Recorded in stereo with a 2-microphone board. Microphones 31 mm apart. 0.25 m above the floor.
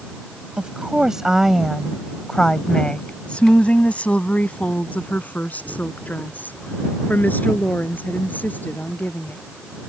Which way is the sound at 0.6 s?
35° right (ahead or behind).